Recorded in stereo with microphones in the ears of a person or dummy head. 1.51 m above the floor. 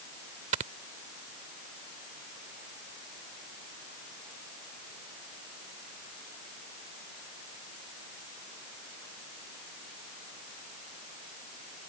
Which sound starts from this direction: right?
Snoring, at 0.5 s.